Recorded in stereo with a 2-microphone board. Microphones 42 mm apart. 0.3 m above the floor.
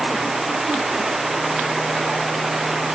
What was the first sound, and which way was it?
Only background noise.